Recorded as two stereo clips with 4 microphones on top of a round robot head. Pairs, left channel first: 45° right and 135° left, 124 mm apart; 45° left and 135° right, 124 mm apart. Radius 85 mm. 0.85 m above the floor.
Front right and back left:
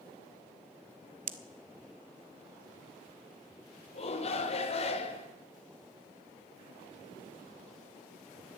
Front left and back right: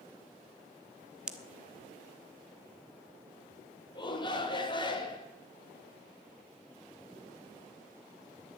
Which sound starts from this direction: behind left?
A pop, at 1.3 s.